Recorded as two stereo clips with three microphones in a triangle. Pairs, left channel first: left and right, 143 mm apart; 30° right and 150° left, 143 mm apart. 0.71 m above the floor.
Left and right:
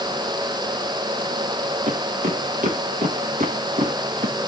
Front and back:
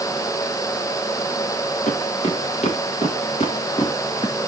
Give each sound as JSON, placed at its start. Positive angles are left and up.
{"t": 1.9, "sound": "footsteps", "azimuth_deg": -65, "distance_m": 3.5}